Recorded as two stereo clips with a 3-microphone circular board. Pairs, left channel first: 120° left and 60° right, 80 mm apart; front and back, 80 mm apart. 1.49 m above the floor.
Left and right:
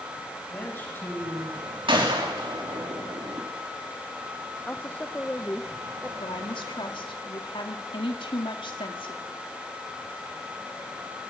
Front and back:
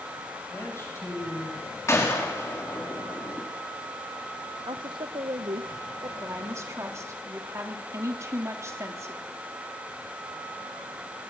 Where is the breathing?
I don't hear breathing.